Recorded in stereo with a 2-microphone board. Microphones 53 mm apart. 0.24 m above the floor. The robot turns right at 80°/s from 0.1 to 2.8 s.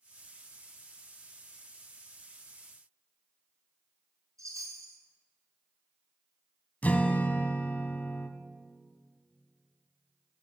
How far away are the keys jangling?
No keys jangling in this recording.